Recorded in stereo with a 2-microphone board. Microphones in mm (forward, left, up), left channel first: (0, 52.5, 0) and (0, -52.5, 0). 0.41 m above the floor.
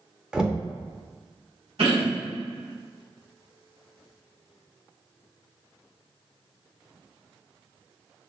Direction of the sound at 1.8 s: 65° right (ahead or behind).